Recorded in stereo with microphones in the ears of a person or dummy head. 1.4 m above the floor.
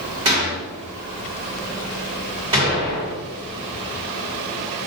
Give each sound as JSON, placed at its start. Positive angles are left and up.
{"t": 0.2, "sound": "a gunshot", "side_deg": -30, "distance_m": 1.9}